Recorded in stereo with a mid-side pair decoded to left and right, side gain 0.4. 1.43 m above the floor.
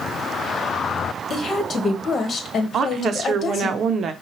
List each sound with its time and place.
1.3 s a woman speaking: 50° left, 1.3 m
2.7 s a woman speaking: 65° right, 0.6 m